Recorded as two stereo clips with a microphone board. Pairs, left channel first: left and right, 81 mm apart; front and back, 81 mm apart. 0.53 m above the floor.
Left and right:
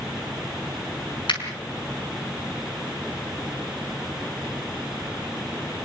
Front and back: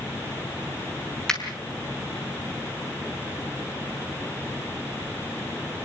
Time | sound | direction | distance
1.3 | a finger snap | 85° left | 5.5 m